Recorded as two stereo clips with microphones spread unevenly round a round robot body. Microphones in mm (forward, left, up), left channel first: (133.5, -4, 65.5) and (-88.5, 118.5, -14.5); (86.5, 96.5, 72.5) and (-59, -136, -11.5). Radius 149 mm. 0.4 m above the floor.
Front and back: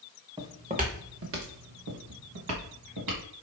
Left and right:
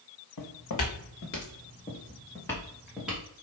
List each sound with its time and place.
0.4 s footsteps: 70° left, 1.5 m; by 3.2 s 150° left, 2.5 m